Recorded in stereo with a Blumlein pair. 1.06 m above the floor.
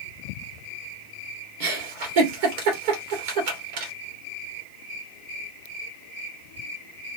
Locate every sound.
1.6 s a giggle: 50° right, 2 m